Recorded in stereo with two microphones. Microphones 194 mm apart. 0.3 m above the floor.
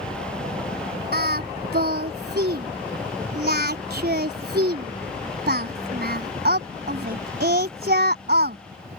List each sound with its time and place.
0.0 s a helicopter: 50° right (ahead or behind)
1.1 s singing: 60° right (ahead or behind)